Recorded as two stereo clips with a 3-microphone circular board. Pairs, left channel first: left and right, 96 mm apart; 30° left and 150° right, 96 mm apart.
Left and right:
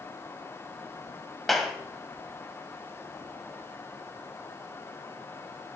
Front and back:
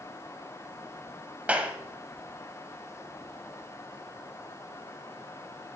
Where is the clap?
175° left, 1.0 m.